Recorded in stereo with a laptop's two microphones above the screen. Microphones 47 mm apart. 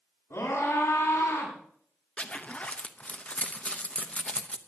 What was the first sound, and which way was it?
A scream, 75° left (ahead or behind).